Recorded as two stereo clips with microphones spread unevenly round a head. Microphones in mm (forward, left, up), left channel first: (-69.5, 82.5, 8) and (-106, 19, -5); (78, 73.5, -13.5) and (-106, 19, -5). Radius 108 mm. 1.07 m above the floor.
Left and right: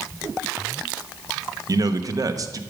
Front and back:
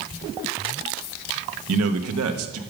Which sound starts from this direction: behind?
A man speaking, at 1.7 s.